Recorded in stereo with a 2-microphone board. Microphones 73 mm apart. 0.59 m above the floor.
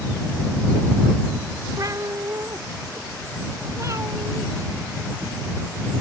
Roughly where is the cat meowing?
Right.